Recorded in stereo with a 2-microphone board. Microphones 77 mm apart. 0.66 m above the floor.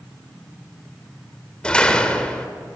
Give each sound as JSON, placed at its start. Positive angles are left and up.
{"t": 1.6, "sound": "a door slam", "side_deg": 10, "distance_m": 1.7}